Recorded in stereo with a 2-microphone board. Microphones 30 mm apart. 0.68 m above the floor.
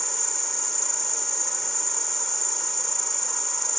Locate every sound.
0.0 s an insect: 10° left (ahead or behind)